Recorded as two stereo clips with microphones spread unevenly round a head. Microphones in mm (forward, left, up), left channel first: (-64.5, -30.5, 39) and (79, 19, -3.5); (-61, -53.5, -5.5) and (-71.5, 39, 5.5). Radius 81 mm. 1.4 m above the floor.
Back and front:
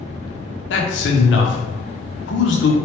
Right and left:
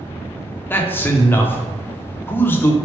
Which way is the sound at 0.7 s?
155° right.